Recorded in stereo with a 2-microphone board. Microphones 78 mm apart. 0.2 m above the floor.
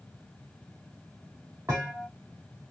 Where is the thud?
35° right (ahead or behind), 3 m.